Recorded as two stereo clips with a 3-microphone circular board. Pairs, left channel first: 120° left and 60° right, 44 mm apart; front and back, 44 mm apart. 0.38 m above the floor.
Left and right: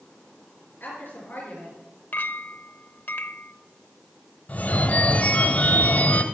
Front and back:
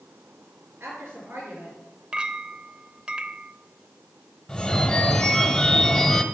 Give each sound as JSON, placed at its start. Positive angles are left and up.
{"t": 0.8, "sound": "a woman speaking", "azimuth_deg": 155, "distance_m": 5.0}
{"t": 2.1, "sound": "a clink", "azimuth_deg": 120, "distance_m": 0.6}
{"t": 4.5, "sound": "a phone ringing", "azimuth_deg": 80, "distance_m": 1.2}